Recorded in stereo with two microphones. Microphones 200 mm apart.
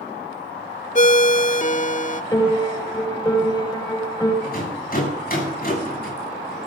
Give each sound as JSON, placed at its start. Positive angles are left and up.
{"t": 0.9, "sound": "a ringtone", "side_deg": 40, "distance_m": 0.6}
{"t": 2.3, "sound": "a piano", "side_deg": 20, "distance_m": 6.0}
{"t": 4.4, "sound": "a rattle", "side_deg": 50, "distance_m": 8.0}